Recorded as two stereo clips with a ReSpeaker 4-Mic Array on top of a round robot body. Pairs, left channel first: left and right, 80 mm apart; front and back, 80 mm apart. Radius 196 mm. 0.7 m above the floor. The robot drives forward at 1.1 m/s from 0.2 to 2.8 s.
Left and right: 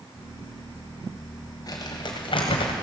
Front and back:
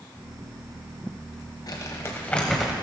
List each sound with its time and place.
1.7 s crumpling: 45° left, 1.4 m; by 2.7 s 100° left, 1.0 m